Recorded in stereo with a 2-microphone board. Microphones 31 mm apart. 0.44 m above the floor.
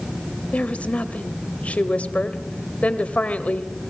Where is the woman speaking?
45° left (ahead or behind), 1.9 m.